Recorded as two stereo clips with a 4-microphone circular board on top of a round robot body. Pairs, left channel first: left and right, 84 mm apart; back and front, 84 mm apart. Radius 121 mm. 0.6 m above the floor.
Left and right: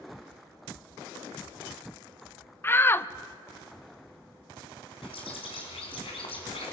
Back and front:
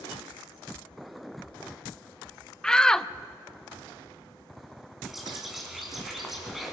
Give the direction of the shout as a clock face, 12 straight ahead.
8 o'clock.